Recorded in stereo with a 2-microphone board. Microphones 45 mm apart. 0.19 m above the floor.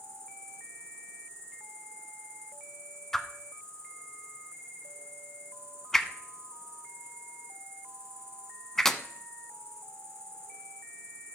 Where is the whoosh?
5° left (ahead or behind), 0.7 m.